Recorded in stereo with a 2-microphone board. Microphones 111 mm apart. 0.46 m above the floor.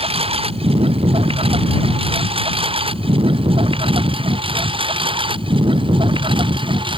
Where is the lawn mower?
60° right (ahead or behind); by 7.0 s 50° right (ahead or behind).